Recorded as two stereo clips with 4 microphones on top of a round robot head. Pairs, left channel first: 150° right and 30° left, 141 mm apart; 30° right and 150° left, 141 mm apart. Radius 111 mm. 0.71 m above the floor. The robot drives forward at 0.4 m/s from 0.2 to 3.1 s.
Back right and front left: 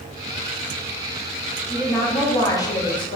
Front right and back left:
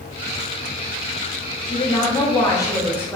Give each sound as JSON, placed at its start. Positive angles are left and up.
{"t": 1.7, "sound": "a woman speaking", "azimuth_deg": -70, "distance_m": 1.2}